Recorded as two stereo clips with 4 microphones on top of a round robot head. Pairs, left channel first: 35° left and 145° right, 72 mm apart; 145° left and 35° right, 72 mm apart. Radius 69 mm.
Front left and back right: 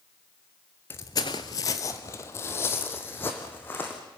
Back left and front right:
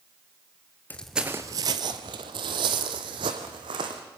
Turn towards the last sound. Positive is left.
turn(degrees=-25)